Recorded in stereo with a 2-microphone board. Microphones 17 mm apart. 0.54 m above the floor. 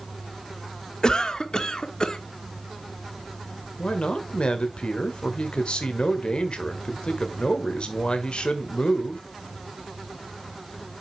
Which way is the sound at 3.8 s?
65° left (ahead or behind).